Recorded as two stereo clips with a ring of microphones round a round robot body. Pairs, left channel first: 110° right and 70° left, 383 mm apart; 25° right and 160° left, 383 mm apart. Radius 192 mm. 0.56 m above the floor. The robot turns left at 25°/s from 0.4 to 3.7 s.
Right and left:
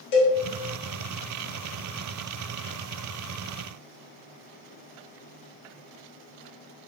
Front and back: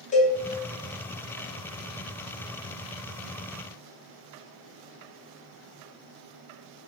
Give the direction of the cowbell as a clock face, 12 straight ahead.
3 o'clock.